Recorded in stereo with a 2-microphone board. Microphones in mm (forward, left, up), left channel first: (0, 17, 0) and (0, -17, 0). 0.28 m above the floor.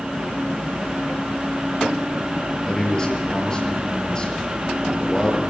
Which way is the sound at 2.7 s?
25° left (ahead or behind).